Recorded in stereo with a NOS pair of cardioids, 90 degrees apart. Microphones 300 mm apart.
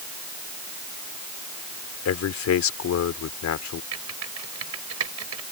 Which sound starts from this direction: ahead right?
Typing on a keyboard, at 3.9 s.